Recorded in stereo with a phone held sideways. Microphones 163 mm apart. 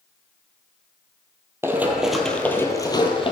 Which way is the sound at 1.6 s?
15° right (ahead or behind).